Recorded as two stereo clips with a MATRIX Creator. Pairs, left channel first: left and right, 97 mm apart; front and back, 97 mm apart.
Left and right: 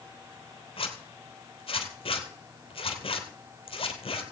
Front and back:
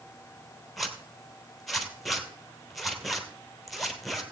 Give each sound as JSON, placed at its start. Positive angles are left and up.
{"t": 0.8, "sound": "a zipper", "azimuth_deg": 90, "distance_m": 1.8}